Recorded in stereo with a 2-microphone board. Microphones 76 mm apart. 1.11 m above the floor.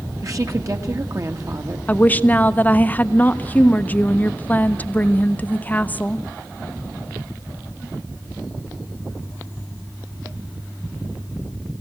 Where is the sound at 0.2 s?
45° right (ahead or behind), 2 m.